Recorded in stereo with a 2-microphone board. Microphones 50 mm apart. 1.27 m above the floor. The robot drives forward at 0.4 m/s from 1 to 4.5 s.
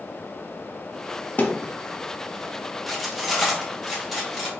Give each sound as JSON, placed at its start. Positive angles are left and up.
{"t": 1.4, "sound": "a thud", "side_deg": 35, "distance_m": 0.7}
{"t": 2.9, "sound": "cutlery clinking", "side_deg": 0, "distance_m": 0.9}